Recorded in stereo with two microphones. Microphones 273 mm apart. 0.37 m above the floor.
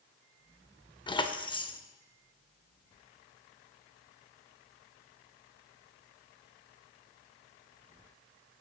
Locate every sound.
1.1 s keys jangling: 15° left (ahead or behind), 0.5 m